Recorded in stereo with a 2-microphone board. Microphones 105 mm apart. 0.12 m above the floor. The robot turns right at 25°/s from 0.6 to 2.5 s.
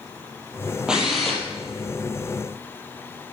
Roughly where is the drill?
Centre.